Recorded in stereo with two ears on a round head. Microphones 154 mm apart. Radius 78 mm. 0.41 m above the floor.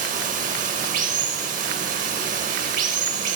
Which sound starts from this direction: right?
Running water, at 0.0 s.